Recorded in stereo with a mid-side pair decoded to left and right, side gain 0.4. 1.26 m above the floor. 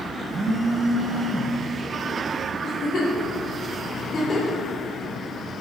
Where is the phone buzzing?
45° right, 0.8 m.